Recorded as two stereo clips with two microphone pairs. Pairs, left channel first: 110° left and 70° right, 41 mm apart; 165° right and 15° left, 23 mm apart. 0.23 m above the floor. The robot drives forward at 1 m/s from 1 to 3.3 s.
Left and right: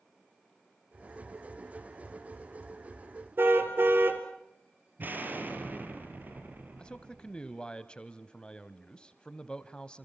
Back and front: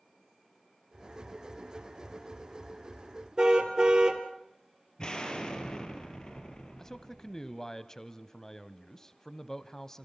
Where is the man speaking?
155° left, 1.0 m.